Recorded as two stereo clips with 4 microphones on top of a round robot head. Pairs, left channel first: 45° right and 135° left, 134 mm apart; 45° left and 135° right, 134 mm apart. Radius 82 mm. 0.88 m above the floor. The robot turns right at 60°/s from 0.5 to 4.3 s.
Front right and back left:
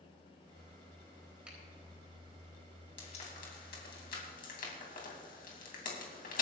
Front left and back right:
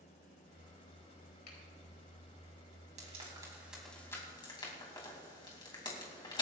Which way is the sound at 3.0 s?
95° right.